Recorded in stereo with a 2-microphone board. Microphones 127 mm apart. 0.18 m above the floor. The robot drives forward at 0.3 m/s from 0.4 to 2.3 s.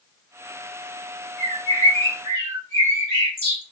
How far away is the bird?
About 3.5 m.